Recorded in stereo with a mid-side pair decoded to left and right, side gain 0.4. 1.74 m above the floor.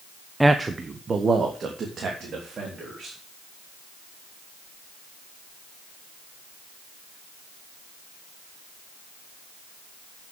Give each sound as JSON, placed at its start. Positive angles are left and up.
{"t": 0.4, "sound": "a man speaking", "azimuth_deg": -10, "distance_m": 0.8}